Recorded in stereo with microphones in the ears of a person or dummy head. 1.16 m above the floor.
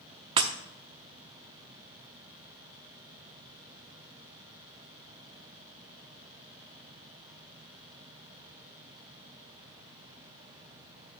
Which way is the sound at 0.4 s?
25° right (ahead or behind).